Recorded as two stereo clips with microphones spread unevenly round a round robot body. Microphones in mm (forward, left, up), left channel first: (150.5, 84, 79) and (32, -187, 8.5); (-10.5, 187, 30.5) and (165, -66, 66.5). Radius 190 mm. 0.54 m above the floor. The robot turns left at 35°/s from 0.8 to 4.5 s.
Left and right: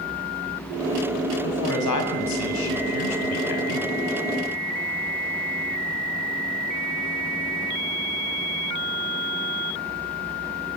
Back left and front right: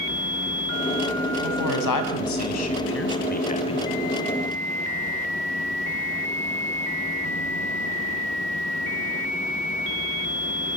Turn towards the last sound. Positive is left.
turn(degrees=25)